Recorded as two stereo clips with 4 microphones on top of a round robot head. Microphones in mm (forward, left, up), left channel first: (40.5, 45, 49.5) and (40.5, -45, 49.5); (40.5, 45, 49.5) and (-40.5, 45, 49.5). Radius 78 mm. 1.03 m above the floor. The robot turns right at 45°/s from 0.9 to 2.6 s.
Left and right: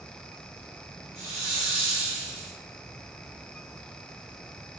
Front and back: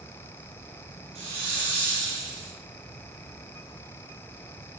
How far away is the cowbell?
No cowbell in this recording.